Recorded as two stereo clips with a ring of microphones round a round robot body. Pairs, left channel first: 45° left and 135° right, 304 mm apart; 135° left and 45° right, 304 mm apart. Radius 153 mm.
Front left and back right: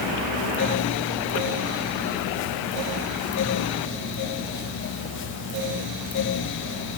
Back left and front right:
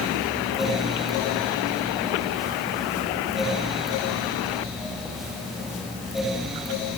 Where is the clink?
No clink in this recording.